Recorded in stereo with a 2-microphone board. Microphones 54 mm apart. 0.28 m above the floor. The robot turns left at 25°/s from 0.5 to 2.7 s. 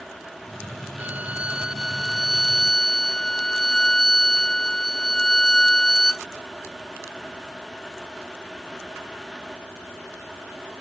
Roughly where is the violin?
Behind right.